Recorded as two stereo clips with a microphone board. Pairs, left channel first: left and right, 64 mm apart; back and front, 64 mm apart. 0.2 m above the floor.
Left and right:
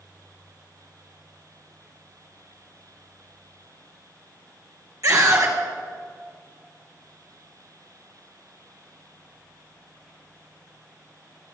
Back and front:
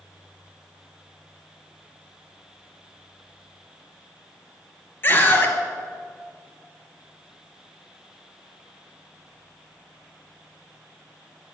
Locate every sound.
5.0 s a scream: 125° right, 3 m